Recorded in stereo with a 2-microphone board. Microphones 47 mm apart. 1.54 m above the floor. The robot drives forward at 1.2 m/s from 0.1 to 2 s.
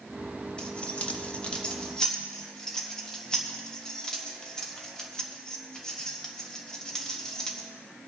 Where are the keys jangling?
20° left (ahead or behind), 1.0 m; by 7.7 s 15° left (ahead or behind), 1.2 m.